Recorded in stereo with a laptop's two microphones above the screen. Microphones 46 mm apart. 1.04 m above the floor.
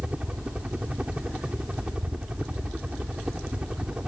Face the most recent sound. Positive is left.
turn(degrees=-25)  # may be behind; listen again after turning